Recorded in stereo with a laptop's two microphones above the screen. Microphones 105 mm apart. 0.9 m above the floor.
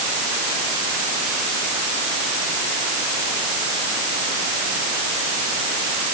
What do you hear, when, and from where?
Only background noise.